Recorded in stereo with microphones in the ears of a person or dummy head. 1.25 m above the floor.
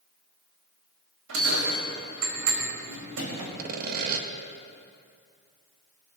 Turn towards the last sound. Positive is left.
turn(degrees=-60)  # may be behind; listen again after turning